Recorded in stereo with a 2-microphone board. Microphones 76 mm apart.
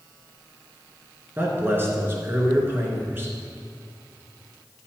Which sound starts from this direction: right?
A man speaking, at 1.4 s.